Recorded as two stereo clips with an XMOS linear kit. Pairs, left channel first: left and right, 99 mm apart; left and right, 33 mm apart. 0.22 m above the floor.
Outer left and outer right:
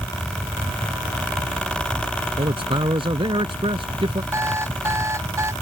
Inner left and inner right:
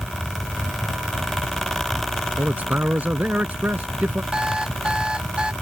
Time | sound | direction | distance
2.4 | a man speaking | 60° right (ahead or behind) | ?
4.3 | an alarm clock | 30° right (ahead or behind) | ?